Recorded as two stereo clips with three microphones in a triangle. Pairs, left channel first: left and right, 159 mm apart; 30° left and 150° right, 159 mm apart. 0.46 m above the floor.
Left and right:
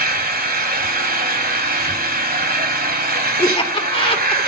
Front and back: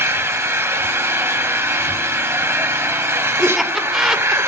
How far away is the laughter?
About 1.5 m.